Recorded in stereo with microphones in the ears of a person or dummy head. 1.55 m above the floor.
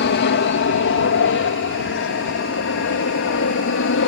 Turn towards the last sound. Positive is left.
turn(degrees=65)  # may be behind; listen again after turning